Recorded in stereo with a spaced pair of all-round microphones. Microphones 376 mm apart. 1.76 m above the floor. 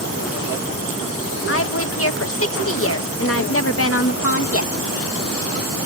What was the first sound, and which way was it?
A woman speaking, 40° left (ahead or behind).